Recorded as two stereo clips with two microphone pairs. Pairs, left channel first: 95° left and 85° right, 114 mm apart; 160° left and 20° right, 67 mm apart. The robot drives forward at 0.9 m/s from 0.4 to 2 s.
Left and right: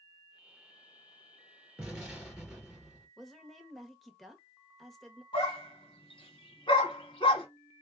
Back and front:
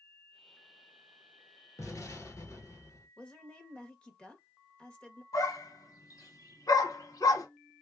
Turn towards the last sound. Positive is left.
turn(degrees=140)